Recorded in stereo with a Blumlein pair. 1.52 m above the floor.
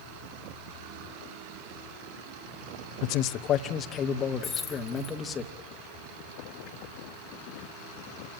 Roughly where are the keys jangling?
Ahead.